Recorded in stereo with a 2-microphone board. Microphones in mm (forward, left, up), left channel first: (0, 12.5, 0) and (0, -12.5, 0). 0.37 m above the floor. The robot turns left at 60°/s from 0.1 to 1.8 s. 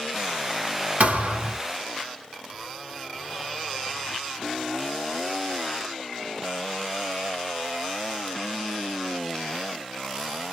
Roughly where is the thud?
Ahead right.